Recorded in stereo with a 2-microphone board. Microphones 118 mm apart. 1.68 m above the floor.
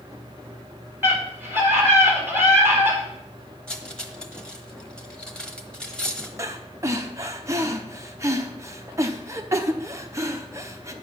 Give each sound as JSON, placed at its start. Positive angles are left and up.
{"t": 1.0, "sound": "a scream", "side_deg": -20, "distance_m": 4.0}
{"t": 3.7, "sound": "cutlery clinking", "side_deg": 10, "distance_m": 1.0}
{"t": 6.4, "sound": "breathing", "side_deg": -25, "distance_m": 0.8}